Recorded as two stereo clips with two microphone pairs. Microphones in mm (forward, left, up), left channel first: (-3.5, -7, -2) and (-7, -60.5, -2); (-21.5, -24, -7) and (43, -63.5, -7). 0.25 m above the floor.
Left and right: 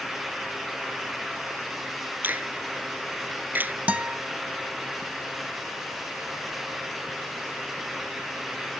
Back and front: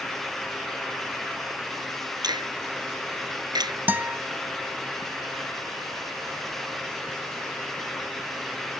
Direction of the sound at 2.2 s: 40° right.